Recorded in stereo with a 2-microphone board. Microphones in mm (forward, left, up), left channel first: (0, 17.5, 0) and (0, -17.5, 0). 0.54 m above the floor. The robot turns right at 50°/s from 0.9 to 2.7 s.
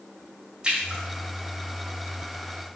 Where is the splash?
25° right (ahead or behind), 2.5 m; by 1.0 s 30° right (ahead or behind), 2.5 m.